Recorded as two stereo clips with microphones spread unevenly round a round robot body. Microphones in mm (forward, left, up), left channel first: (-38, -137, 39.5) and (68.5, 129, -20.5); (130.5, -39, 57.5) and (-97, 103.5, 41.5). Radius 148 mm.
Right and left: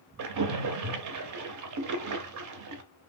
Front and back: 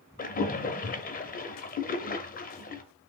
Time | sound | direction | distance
0.2 | a splash | 30° left | 0.5 m